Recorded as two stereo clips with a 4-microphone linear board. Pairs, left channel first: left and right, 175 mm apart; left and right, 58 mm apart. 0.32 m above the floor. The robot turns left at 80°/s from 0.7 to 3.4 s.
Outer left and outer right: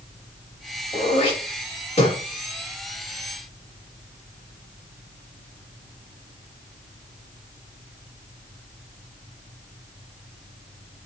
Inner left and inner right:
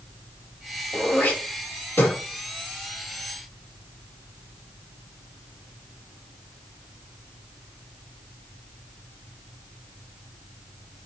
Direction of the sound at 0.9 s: 20° left (ahead or behind).